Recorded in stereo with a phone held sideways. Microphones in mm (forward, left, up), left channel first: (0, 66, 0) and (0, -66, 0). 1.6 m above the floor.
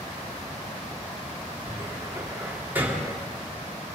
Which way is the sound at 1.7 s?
15° right (ahead or behind).